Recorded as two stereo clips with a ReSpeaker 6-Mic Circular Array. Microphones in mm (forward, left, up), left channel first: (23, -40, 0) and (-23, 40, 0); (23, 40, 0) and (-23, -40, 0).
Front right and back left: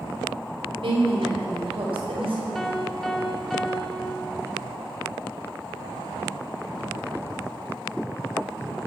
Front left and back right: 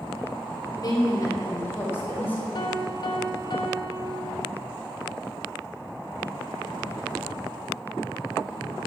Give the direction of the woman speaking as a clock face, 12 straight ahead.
9 o'clock.